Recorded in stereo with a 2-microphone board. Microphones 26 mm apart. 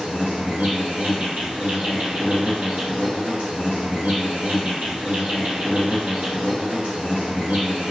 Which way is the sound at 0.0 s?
65° right (ahead or behind).